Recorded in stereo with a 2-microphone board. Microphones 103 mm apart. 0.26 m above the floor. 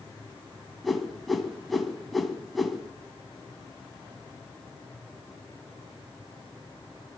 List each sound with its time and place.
0.8 s a whoosh: centre (ahead or behind), 2 m